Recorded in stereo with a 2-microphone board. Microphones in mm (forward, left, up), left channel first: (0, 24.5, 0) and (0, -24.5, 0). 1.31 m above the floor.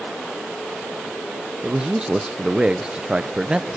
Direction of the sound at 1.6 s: 20° right (ahead or behind).